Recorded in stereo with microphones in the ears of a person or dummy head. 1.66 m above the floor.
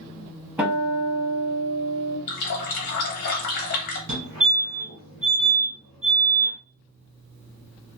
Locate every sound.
0.6 s a guitar: 10° right (ahead or behind), 0.9 m
2.3 s a running tap: 55° left (ahead or behind), 1.2 m
4.1 s a fire alarm: 55° right (ahead or behind), 2 m